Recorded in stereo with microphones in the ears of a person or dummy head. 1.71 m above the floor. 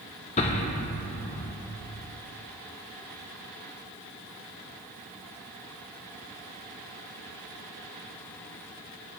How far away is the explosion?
About 1.3 m.